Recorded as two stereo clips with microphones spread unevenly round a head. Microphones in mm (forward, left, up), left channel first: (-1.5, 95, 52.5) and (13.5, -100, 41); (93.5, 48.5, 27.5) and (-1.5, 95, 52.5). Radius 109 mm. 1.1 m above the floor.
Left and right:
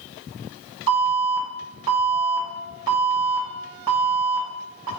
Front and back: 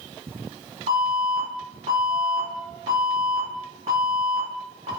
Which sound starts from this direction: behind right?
An alarm, at 0.9 s.